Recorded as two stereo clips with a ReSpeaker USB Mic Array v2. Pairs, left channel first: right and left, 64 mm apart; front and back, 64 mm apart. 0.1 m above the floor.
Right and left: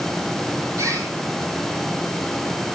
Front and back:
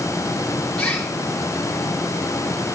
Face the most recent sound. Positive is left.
turn(degrees=75)